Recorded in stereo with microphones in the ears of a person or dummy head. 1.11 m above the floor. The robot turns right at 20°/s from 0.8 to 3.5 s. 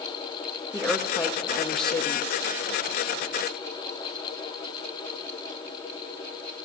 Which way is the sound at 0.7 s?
5° left.